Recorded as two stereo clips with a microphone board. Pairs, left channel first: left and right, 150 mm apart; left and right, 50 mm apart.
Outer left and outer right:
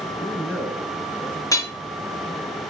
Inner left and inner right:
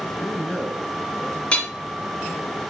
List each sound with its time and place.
0.1 s a man speaking: 10° right (ahead or behind), 4.5 m
1.5 s hammering: 20° left (ahead or behind), 1.7 m